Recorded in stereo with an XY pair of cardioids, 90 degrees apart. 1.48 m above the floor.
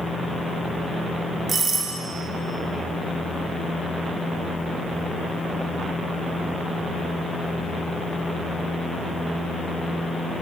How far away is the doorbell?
About 2 m.